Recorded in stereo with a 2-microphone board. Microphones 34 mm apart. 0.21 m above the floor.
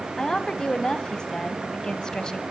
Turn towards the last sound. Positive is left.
turn(degrees=20)  # may be behind; listen again after turning